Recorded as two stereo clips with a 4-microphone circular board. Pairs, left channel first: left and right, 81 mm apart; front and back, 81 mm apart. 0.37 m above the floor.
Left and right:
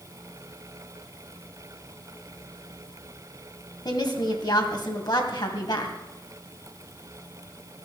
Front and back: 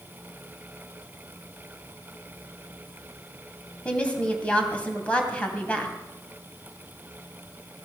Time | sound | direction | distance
3.9 | a woman speaking | 70° left | 2.5 m